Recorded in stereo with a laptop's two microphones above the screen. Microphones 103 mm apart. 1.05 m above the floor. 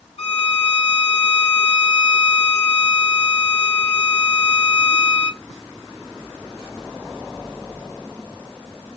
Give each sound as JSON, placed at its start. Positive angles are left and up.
{"t": 0.2, "sound": "a violin", "side_deg": 60, "distance_m": 1.3}